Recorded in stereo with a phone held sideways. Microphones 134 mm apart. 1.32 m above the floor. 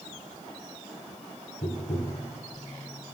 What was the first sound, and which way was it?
Tapping, 70° left (ahead or behind).